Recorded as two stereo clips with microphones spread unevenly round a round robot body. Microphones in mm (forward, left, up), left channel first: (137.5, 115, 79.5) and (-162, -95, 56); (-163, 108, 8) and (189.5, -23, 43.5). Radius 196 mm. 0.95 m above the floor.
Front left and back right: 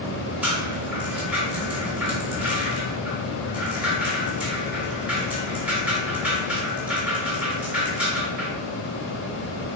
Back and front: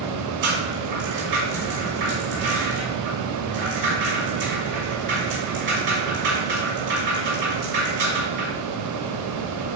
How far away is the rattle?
About 3 m.